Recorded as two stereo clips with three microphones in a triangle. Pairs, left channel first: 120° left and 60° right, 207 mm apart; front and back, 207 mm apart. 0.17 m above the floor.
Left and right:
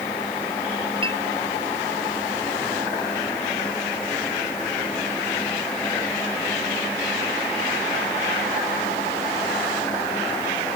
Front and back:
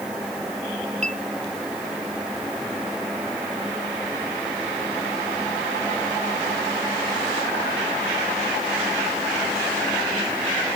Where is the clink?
125° right.